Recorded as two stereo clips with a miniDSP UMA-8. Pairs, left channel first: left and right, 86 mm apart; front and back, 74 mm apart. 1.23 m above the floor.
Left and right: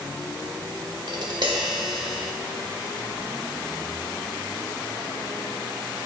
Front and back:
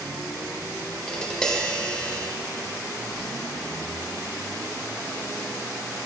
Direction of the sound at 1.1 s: 80° right.